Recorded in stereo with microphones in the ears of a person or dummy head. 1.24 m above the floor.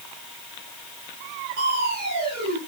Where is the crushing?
65° right (ahead or behind), 2 m.